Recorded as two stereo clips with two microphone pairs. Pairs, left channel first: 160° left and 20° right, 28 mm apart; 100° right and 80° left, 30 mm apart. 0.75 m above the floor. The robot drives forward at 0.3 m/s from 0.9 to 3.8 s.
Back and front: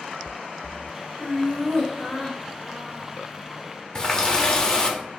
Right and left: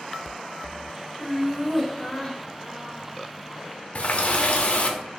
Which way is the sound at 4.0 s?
135° right.